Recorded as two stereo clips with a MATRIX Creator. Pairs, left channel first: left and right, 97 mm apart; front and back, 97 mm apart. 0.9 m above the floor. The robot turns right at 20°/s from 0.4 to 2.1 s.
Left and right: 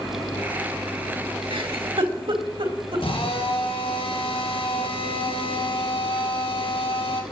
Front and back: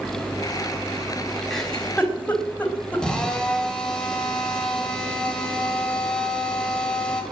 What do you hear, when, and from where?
1.5 s a giggle: 85° right, 3.5 m; by 3.0 s 75° right, 3.5 m
3.0 s a drill: 80° left, 3.5 m